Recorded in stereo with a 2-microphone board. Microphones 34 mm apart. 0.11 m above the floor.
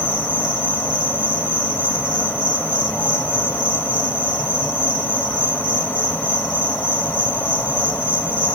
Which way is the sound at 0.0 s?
50° left (ahead or behind).